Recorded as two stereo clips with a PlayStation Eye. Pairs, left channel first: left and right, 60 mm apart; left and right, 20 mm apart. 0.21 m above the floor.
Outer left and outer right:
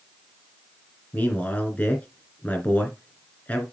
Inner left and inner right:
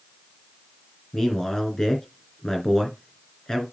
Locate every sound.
1.1 s a man speaking: 25° left (ahead or behind), 3 m